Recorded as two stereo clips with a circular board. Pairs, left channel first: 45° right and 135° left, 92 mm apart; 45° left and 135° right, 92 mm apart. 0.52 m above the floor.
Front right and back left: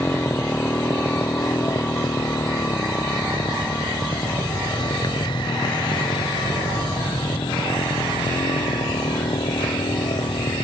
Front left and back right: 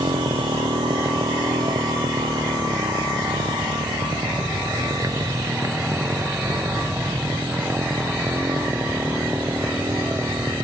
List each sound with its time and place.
0.0 s a motorcycle: 110° right; by 10.6 s 65° right